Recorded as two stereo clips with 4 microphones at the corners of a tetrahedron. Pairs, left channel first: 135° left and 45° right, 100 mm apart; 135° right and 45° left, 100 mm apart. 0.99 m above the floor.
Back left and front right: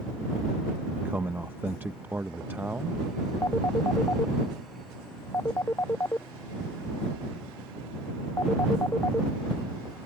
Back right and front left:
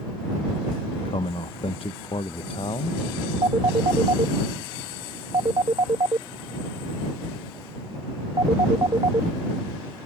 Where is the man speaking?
110° right.